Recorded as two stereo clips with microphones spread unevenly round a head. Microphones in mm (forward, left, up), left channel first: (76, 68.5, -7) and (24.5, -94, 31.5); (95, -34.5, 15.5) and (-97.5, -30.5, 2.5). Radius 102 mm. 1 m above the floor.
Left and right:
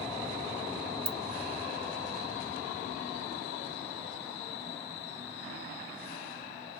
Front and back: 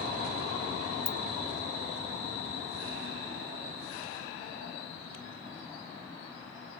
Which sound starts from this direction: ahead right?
A ringtone, at 1.1 s.